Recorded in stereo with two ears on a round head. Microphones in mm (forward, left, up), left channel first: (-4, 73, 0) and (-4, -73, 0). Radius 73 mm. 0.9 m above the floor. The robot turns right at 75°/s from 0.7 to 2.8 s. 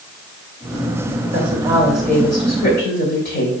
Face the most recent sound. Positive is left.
turn(degrees=60)